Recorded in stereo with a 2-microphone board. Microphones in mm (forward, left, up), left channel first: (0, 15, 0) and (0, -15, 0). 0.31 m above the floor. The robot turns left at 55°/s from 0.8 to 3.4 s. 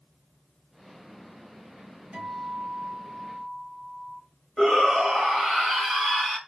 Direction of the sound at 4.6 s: 35° left (ahead or behind).